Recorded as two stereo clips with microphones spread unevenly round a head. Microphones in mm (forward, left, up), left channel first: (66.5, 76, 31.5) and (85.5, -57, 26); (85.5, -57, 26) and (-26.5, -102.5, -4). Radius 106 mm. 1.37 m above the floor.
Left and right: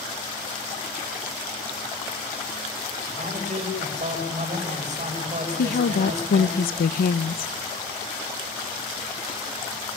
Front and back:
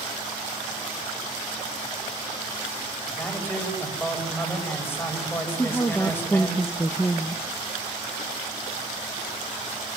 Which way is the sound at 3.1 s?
50° right.